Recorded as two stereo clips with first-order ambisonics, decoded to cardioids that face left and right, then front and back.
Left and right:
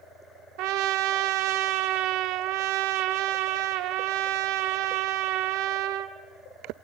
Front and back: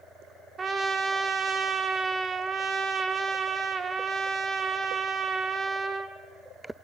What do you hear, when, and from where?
0.6 s a trumpet: 105° right, 1.3 m